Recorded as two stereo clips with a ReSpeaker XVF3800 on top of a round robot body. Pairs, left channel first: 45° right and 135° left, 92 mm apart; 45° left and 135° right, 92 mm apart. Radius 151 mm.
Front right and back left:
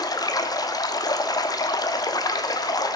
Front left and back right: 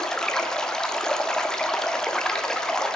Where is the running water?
35° right, 1.2 m.